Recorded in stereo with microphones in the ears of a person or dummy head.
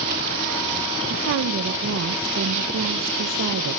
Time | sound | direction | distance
1.1 | a woman speaking | 70° right (ahead or behind) | 1.5 m